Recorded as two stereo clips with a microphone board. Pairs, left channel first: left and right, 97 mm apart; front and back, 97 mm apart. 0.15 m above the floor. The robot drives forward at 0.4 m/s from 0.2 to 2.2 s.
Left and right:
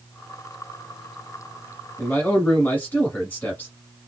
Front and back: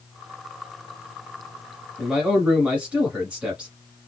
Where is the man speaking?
120° left, 1.1 m; by 3.8 s 130° left, 1.1 m.